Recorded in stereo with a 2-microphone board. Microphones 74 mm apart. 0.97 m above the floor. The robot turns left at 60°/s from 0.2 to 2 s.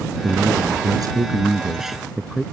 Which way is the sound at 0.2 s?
75° right.